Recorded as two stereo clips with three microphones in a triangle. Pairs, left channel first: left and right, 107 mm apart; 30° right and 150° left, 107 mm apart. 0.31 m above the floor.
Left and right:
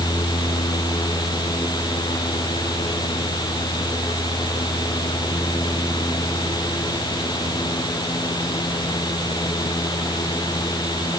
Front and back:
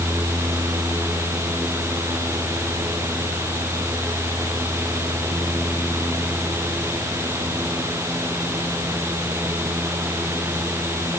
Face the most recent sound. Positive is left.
No sound to turn to.